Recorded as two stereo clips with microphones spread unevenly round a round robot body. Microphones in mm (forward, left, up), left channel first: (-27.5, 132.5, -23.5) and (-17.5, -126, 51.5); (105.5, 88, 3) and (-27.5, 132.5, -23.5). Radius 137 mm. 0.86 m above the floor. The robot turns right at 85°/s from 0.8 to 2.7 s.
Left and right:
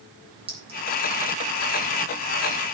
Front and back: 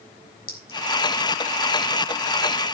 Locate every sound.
0.5 s a clink: 15° right, 3.5 m